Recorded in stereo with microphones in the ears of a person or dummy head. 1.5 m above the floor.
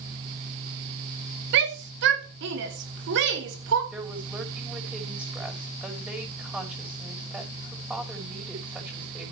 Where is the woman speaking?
5° right (ahead or behind), 6 m.